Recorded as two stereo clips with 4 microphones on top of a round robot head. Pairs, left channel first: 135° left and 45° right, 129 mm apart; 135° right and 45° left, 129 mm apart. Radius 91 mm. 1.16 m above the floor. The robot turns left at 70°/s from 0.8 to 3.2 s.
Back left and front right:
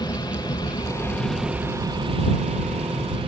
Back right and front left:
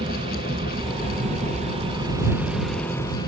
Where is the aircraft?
85° left; by 3.3 s 85° right.